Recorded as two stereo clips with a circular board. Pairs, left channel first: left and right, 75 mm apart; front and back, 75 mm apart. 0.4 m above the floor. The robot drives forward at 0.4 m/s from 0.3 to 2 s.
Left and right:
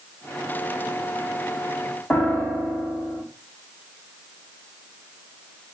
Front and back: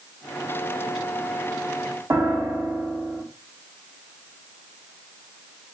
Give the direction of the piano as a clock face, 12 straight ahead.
7 o'clock.